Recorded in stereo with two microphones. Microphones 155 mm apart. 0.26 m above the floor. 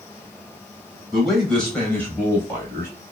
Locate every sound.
1.1 s a man speaking: centre (ahead or behind), 1.5 m; by 2.9 s 20° left (ahead or behind), 1.6 m